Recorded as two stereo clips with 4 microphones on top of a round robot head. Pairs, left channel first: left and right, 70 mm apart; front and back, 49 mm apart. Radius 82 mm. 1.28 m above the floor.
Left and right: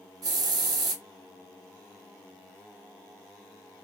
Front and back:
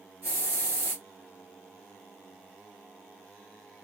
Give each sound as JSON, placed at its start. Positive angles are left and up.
{"t": 0.2, "sound": "a hiss", "azimuth_deg": -120, "distance_m": 0.6}